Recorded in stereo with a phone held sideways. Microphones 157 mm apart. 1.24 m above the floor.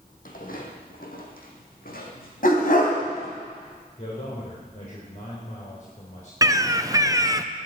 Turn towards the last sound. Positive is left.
turn(degrees=-20)  # may be behind; listen again after turning